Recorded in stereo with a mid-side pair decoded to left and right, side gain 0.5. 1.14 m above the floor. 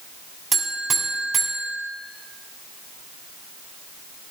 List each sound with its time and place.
0.5 s a buzzer: 40° right, 3 m